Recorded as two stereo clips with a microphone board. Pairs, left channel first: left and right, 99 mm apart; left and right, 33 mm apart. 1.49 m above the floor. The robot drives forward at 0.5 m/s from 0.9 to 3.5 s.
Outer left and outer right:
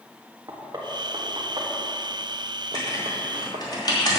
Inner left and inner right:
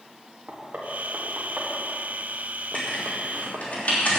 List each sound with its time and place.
0.5 s knocking: 40° right (ahead or behind), 1.9 m; by 3.6 s 75° right (ahead or behind), 1.3 m
2.7 s writing: 35° left (ahead or behind), 3.5 m; by 4.2 s 40° left (ahead or behind), 3 m